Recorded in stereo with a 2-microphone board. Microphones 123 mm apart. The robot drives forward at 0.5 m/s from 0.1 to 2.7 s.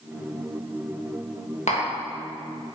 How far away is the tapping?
About 1.4 m.